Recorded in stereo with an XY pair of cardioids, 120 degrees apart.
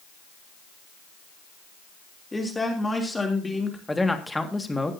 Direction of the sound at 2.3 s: 10° left.